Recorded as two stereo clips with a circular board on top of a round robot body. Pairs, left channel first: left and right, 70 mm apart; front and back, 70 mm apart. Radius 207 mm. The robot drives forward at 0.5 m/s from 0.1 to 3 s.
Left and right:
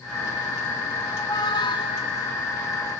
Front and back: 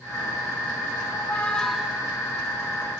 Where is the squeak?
55° left, 0.6 m; by 2.1 s 110° left, 0.5 m.